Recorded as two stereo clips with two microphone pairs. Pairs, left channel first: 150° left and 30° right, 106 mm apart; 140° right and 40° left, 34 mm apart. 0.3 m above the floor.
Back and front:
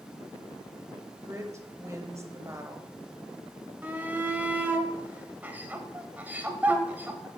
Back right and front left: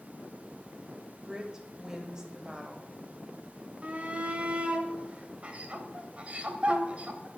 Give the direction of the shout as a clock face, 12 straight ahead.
11 o'clock.